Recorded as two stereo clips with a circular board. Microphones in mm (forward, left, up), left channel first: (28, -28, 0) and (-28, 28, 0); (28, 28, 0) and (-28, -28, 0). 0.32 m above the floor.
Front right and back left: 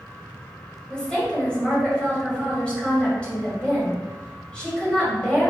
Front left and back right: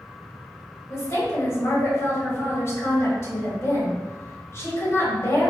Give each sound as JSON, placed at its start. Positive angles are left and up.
{"t": 0.9, "sound": "a woman speaking", "azimuth_deg": 25, "distance_m": 1.9}